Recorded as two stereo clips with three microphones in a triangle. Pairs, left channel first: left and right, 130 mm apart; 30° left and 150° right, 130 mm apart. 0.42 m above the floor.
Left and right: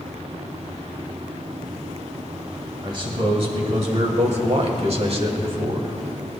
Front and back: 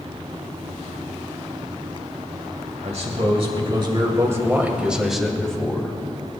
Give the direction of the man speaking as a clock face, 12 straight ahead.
4 o'clock.